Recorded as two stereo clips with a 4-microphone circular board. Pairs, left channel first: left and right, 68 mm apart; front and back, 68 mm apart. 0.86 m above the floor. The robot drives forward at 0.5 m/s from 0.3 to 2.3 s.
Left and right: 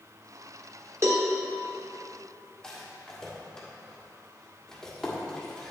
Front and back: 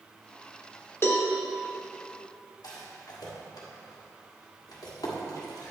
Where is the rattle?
10° left, 1.6 m.